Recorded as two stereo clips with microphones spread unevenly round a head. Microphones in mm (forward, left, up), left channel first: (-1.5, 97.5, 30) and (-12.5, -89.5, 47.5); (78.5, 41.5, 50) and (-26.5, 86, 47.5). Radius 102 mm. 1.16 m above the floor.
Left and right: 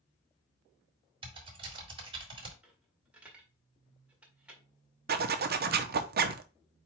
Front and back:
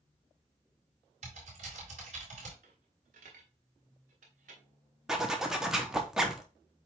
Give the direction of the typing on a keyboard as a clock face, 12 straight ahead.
5 o'clock.